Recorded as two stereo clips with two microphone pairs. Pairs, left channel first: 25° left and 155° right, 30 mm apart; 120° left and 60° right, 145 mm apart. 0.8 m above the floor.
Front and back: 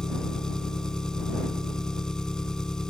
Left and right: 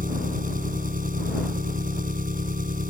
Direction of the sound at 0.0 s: 40° right.